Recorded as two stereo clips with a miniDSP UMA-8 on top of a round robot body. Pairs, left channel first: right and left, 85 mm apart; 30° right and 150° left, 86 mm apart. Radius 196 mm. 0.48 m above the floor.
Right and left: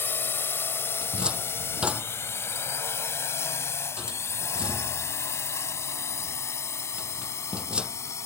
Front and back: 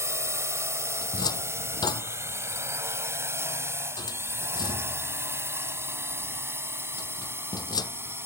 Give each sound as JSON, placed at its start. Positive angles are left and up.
{"t": 0.0, "sound": "a drone", "azimuth_deg": -155}
{"t": 1.0, "sound": "a cupboard door", "azimuth_deg": 10}